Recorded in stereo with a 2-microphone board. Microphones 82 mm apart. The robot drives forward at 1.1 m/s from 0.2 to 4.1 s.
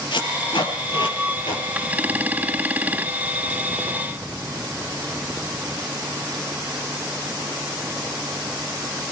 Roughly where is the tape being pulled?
Left.